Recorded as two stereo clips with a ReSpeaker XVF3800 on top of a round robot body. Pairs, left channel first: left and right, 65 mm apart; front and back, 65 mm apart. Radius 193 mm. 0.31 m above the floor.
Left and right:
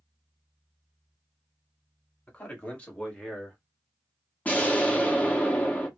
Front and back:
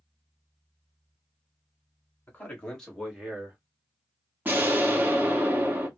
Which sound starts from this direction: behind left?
An explosion, at 4.5 s.